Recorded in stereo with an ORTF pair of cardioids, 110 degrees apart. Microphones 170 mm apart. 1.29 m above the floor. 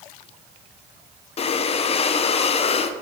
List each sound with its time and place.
1.4 s breathing: 40° left, 0.5 m